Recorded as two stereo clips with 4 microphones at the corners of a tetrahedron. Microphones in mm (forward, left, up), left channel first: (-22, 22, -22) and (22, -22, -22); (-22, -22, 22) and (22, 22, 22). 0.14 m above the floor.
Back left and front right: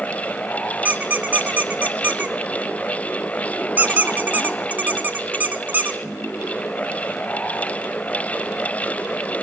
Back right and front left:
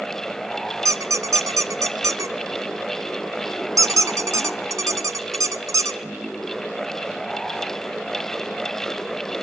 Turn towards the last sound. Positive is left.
turn(degrees=15)